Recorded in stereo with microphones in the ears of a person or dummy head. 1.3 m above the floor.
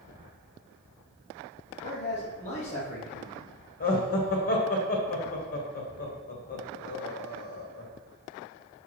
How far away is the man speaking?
About 1.5 m.